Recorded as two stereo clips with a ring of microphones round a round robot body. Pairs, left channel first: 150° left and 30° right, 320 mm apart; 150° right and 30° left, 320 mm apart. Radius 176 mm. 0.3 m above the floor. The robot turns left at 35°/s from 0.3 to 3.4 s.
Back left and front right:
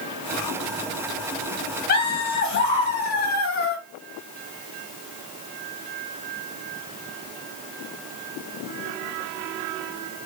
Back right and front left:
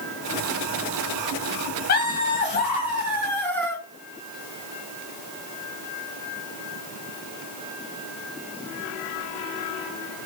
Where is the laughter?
Straight behind, 1.0 m; by 3.8 s 125° left, 1.0 m.